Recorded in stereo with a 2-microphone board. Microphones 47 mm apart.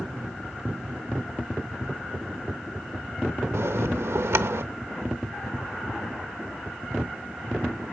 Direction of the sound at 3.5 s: 80° right.